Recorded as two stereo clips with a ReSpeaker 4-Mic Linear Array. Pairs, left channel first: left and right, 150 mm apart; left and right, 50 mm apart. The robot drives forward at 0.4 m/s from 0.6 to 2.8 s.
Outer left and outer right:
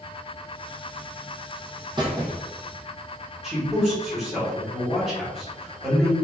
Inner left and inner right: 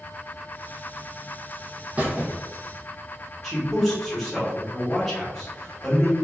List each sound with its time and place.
2.0 s a squeak: 30° right (ahead or behind), 0.9 m; by 2.4 s 25° right (ahead or behind), 1.1 m
3.4 s a man speaking: 5° right (ahead or behind), 1.5 m